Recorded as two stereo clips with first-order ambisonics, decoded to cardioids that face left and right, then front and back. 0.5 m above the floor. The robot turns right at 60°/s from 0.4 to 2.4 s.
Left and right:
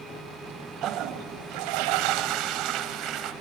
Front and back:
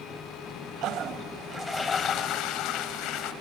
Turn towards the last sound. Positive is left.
turn(degrees=-45)